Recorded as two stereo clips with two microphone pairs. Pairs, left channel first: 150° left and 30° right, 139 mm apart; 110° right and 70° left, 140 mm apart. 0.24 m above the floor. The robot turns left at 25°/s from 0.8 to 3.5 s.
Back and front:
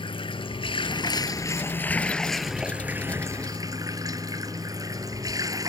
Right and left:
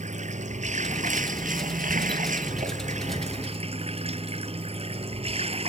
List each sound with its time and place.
0.0 s running water: 100° left; by 5.7 s 30° left